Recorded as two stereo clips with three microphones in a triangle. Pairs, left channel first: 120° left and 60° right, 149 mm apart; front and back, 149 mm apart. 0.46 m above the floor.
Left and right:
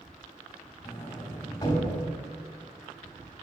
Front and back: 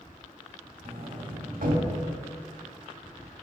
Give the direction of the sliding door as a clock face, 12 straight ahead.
6 o'clock.